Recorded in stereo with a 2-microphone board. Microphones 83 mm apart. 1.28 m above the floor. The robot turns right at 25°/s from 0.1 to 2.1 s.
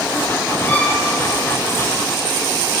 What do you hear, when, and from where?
0.7 s a violin: 25° left (ahead or behind), 2 m; by 1.0 s 35° left (ahead or behind), 2 m